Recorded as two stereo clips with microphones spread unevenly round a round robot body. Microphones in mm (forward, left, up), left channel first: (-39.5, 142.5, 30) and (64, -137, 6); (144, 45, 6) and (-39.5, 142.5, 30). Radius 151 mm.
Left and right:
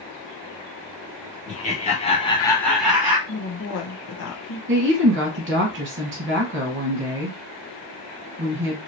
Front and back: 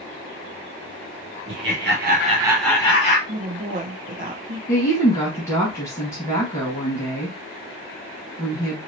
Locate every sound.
1.5 s laughter: straight behind, 1.3 m; by 3.2 s 5° left, 1.0 m
3.3 s a woman speaking: 115° left, 1.0 m
4.7 s a woman speaking: 95° right, 1.3 m